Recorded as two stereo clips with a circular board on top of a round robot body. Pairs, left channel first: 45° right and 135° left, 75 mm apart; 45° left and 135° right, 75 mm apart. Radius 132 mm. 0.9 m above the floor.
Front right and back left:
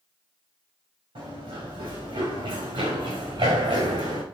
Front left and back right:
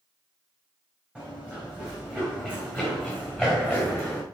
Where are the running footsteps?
150° left, 6 m; by 4.2 s 140° left, 3 m.